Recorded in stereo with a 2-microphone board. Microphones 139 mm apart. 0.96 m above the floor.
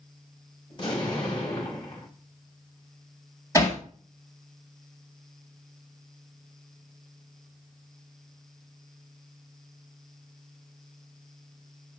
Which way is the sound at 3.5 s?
25° left (ahead or behind).